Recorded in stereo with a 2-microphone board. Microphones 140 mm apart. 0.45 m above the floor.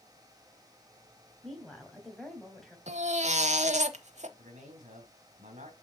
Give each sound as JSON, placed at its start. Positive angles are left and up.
{"t": 1.4, "sound": "a woman speaking", "side_deg": 5, "distance_m": 3.0}
{"t": 2.9, "sound": "a baby crying", "side_deg": -55, "distance_m": 0.8}
{"t": 4.4, "sound": "a man speaking", "side_deg": -65, "distance_m": 2.5}